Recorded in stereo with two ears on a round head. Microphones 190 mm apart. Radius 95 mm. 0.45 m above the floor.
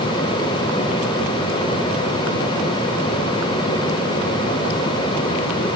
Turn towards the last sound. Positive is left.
No sound to turn to.